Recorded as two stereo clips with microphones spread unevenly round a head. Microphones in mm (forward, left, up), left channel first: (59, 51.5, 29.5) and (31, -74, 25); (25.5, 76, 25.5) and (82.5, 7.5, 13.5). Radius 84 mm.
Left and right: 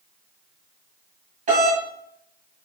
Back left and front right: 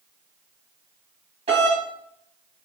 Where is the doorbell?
80° right, 3 m.